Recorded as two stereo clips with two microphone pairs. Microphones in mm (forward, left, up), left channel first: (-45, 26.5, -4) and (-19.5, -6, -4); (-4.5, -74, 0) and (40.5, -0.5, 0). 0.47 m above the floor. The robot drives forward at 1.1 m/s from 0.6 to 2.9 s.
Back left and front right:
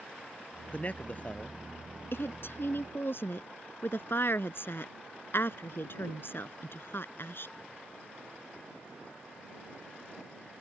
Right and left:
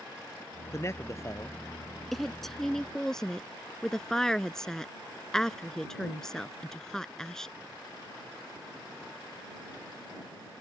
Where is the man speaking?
Straight behind.